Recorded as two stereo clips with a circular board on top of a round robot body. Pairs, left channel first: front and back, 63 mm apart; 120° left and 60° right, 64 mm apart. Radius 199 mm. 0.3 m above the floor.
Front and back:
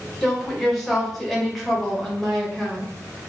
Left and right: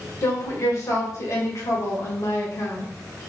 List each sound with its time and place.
0.2 s a woman speaking: 90° left, 1.9 m